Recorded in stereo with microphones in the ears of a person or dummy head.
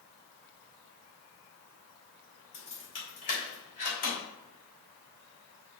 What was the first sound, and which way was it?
Keys jangling, 35° left (ahead or behind).